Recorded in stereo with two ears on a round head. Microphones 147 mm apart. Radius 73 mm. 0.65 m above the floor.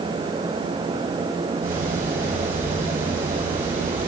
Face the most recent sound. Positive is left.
turn(degrees=-55)  # may be behind; listen again after turning